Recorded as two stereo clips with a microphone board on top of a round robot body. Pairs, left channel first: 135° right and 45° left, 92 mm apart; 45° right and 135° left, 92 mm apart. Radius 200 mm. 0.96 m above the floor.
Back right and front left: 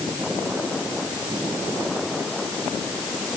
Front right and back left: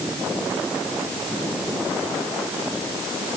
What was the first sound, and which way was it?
Only background noise.